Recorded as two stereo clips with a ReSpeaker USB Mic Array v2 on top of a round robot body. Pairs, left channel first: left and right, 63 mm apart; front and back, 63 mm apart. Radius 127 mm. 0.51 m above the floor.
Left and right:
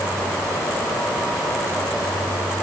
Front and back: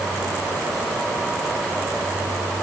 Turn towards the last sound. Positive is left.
No sound to turn to.